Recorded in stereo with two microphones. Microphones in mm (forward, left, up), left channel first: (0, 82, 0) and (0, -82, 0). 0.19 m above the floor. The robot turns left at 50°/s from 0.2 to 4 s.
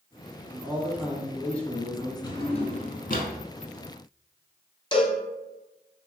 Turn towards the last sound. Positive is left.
turn(degrees=30)  # may be behind; listen again after turning